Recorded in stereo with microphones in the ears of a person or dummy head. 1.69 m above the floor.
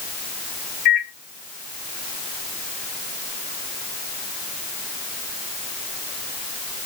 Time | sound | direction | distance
0.8 | a microwave | 35° left (ahead or behind) | 0.9 m